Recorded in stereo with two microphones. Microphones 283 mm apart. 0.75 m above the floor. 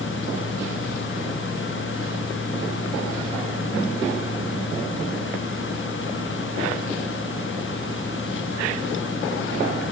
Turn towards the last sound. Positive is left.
No sound to turn to.